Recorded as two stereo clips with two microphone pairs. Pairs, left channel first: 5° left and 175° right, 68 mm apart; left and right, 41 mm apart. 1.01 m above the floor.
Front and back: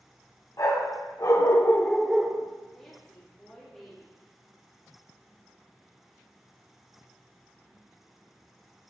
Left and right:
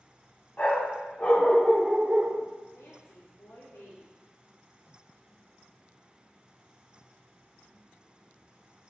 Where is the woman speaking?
85° left, 2.5 m.